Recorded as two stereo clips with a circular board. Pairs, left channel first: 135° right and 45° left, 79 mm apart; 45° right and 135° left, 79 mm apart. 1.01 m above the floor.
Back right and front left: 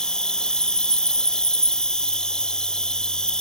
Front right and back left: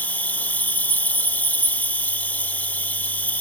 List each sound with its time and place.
0.0 s an insect: 70° right